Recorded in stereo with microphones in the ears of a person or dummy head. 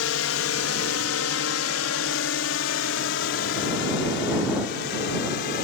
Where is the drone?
75° left (ahead or behind); by 5.6 s 55° left (ahead or behind).